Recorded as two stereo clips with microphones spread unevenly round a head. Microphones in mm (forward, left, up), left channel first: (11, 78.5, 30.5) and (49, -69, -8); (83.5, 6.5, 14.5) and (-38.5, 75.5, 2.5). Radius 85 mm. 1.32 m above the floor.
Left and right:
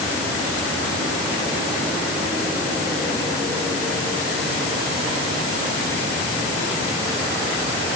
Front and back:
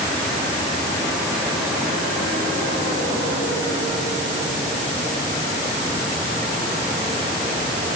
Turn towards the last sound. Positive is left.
No sound to turn to.